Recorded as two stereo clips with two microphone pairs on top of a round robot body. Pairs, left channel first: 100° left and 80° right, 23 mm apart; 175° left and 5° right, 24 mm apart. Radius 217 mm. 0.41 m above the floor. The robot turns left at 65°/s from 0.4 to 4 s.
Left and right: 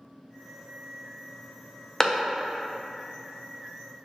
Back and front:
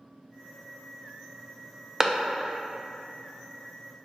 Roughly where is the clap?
Ahead left.